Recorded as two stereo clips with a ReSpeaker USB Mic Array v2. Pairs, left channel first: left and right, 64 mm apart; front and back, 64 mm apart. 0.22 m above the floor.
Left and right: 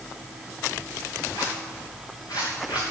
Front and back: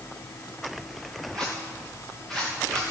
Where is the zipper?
85° left, 4 m.